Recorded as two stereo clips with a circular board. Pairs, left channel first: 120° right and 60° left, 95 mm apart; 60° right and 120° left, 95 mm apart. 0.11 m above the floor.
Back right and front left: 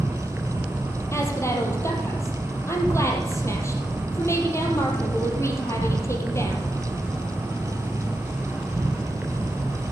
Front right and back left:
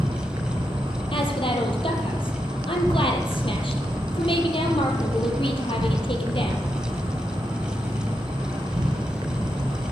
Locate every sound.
0.0 s an insect: 130° left, 2.5 m
1.1 s a woman speaking: 60° right, 3.5 m